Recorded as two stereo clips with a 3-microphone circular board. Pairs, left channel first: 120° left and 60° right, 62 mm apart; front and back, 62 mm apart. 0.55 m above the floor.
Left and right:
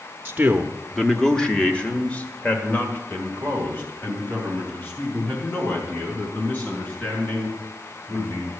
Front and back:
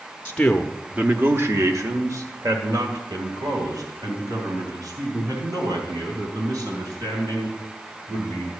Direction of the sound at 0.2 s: 35° right.